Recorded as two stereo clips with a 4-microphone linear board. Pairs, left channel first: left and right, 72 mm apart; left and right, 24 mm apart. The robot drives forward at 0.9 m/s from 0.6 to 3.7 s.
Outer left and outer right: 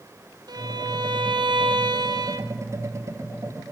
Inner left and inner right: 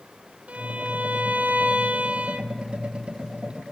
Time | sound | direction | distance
0.5 | a violin | 60° right (ahead or behind) | 1.6 m